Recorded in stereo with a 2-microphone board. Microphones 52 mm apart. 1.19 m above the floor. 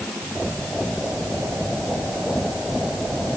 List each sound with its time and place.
Only background noise.